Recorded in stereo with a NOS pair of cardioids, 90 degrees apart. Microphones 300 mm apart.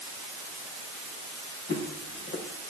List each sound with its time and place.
1.7 s footsteps: 45° left, 5 m